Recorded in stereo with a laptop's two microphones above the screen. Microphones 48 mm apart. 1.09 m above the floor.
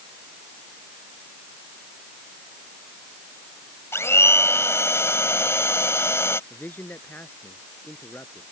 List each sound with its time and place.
3.9 s a blender: 70° left (ahead or behind)
6.5 s a man speaking: 45° left (ahead or behind)